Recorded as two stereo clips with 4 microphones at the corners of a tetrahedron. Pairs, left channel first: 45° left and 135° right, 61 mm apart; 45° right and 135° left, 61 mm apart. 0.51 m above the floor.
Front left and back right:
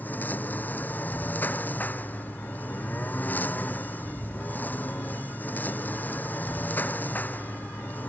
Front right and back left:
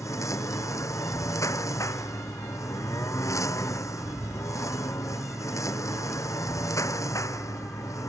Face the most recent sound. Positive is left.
turn(degrees=-15)